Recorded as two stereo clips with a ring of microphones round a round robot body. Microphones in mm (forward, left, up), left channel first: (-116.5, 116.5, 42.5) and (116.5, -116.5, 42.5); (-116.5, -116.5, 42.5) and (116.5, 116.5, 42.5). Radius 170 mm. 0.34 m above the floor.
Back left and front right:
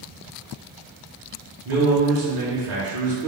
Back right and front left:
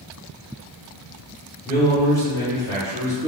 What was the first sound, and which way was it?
A man speaking, 60° right.